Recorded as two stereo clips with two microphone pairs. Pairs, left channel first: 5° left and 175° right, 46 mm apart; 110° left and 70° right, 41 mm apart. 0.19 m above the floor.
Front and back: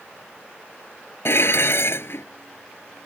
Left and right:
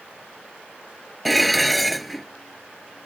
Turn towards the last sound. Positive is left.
turn(degrees=25)